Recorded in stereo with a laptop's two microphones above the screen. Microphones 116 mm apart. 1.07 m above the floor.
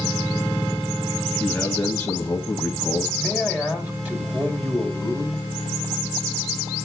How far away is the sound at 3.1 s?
About 2.5 m.